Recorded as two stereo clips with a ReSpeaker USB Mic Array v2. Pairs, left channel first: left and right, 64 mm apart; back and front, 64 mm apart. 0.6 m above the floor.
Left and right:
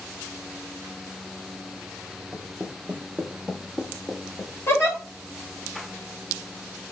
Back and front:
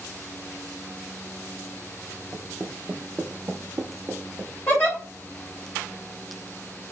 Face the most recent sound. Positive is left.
turn(degrees=130)